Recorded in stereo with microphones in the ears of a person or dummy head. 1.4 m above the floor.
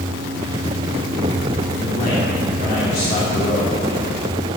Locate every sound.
1.8 s a man speaking: 50° left (ahead or behind), 3 m